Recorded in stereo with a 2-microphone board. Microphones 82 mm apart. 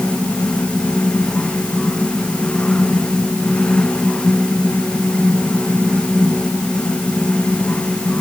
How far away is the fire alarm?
I don't hear a fire alarm.